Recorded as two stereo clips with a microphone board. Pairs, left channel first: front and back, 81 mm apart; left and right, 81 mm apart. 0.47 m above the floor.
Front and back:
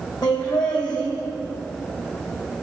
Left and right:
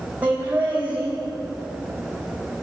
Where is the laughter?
20° right, 3 m.